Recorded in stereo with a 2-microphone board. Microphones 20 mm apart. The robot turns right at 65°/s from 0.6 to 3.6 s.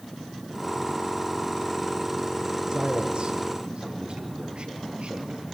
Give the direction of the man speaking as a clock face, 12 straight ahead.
5 o'clock.